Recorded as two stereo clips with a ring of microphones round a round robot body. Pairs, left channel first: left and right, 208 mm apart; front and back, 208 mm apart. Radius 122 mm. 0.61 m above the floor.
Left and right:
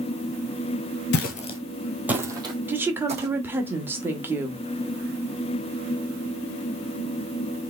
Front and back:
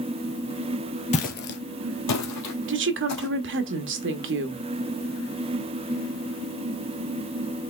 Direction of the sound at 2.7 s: 170° right.